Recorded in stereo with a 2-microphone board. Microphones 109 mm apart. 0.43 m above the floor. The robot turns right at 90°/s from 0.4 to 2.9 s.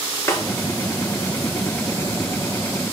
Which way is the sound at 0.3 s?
25° left (ahead or behind).